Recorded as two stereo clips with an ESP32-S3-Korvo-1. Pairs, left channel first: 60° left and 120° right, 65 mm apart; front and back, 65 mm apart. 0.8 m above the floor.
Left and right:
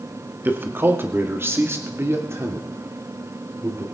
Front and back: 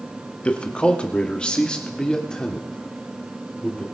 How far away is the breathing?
No breathing in this recording.